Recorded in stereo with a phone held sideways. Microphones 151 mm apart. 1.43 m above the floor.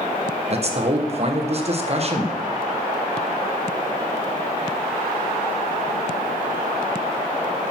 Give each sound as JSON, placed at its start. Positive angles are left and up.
{"t": 0.5, "sound": "a man speaking", "side_deg": -45, "distance_m": 1.2}